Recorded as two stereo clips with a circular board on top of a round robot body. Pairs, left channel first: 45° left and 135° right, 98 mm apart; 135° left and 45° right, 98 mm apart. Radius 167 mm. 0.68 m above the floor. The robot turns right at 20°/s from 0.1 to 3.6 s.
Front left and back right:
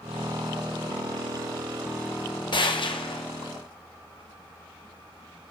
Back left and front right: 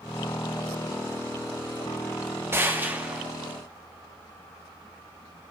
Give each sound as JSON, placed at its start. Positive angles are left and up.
{"t": 2.5, "sound": "a gunshot", "azimuth_deg": 15, "distance_m": 1.2}